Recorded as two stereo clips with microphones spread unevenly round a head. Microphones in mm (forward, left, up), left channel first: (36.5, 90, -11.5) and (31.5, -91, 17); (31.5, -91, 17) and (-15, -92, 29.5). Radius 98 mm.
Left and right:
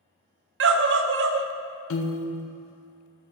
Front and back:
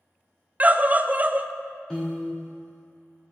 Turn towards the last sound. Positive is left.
turn(degrees=90)